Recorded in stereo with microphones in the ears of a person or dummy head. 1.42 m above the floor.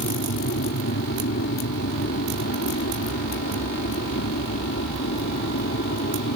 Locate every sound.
0.0 s an aircraft: 60° left (ahead or behind)